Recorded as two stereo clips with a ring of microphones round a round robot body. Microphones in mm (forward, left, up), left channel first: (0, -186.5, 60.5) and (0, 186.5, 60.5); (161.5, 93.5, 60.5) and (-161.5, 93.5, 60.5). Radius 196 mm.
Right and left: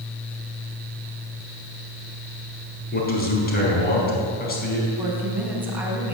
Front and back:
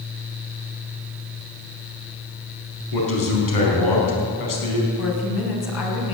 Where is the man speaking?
25° right, 5 m.